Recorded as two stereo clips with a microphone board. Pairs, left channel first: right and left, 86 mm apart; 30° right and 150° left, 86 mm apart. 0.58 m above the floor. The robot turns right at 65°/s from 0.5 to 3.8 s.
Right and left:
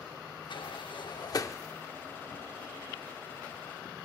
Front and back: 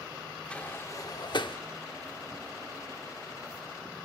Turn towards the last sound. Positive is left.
turn(degrees=105)